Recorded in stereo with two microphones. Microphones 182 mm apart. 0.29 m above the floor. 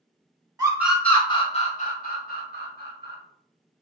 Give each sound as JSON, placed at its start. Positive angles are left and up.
{"t": 0.6, "sound": "a scream", "side_deg": -20, "distance_m": 0.9}